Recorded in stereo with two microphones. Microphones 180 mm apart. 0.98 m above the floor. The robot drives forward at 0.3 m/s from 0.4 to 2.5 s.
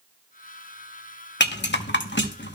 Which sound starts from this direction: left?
A rattle, at 1.4 s.